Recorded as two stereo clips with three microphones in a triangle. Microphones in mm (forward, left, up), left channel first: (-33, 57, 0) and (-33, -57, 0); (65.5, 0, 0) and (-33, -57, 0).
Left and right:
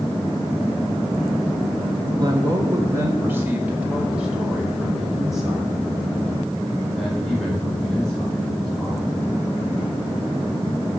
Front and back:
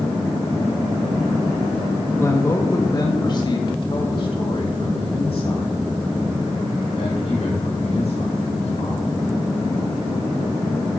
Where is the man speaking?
35° right, 1.6 m; by 9.1 s 10° left, 5 m.